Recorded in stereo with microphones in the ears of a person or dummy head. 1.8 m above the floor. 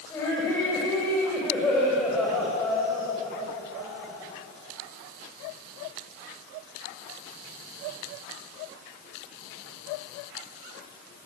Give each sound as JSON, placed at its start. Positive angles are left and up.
{"t": 0.1, "sound": "laughter", "side_deg": 20, "distance_m": 7.0}